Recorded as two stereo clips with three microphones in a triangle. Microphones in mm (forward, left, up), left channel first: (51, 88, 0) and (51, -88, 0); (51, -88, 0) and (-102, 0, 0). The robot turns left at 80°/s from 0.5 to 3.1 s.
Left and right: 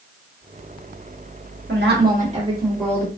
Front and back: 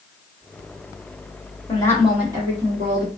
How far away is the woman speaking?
About 1.3 m.